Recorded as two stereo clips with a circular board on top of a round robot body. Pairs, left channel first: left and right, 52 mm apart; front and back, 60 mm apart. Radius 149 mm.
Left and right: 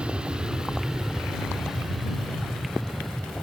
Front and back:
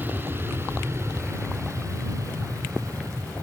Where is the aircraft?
150° right; by 3.4 s 175° left.